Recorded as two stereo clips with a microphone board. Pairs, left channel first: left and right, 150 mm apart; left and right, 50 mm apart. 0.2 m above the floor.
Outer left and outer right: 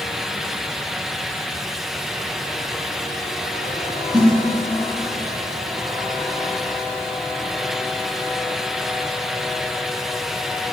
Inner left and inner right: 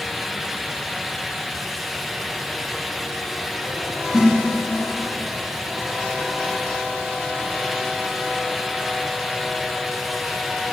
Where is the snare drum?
5° right (ahead or behind), 5.5 m.